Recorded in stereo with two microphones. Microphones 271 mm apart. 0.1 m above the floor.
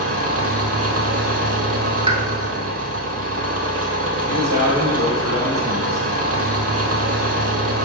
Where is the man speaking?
35° right (ahead or behind), 2.5 m.